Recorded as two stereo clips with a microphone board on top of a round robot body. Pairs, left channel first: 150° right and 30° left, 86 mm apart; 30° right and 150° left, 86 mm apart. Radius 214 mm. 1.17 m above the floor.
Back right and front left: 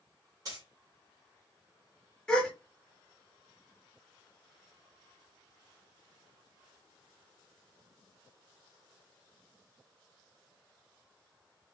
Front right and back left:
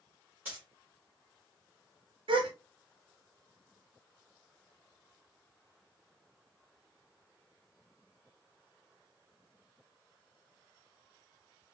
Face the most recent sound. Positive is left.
turn(degrees=130)